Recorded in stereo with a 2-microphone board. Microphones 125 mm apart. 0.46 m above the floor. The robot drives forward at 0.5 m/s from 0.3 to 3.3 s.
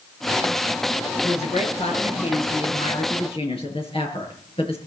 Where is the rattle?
I don't hear a rattle.